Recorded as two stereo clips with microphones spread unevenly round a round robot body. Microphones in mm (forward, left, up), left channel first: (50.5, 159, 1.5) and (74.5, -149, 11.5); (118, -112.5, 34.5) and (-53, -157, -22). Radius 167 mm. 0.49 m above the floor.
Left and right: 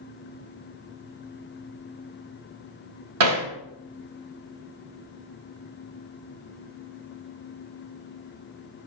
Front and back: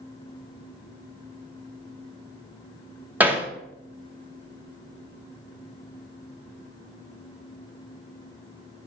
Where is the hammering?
105° right, 1.3 m.